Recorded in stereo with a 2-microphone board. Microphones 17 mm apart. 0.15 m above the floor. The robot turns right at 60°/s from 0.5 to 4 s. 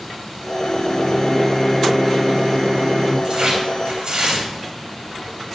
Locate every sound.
0.6 s a microwave: 105° left, 1.7 m; by 3.1 s 105° right, 1.7 m
3.2 s tearing paper: 125° right, 3 m; by 4.5 s 80° right, 3 m